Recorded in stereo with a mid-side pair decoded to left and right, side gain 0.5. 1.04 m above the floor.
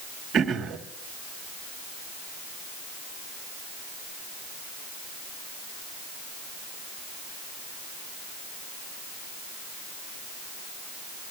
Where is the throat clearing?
55° right, 1.5 m.